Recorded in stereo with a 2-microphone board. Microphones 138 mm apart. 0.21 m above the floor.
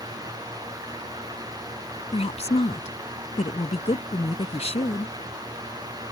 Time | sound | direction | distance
2.1 | a woman speaking | 50° left (ahead or behind) | ?